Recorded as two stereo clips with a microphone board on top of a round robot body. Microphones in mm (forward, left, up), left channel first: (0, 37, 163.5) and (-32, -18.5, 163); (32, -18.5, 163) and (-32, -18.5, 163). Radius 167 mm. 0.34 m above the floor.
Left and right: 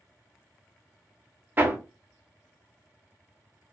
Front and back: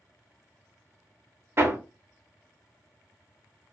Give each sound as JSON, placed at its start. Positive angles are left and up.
{"t": 1.6, "sound": "hammering", "azimuth_deg": -160, "distance_m": 1.0}